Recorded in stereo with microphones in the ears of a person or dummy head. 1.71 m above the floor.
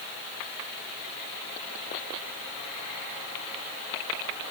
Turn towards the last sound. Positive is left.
No sound to turn to.